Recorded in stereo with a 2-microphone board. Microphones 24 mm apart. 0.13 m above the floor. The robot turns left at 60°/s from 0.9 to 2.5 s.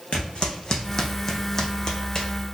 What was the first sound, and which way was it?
Footsteps, 55° left (ahead or behind).